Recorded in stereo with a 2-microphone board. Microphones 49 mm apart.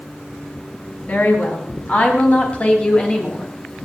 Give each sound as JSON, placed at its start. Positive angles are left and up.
{"t": 1.1, "sound": "a woman speaking", "side_deg": 40, "distance_m": 4.0}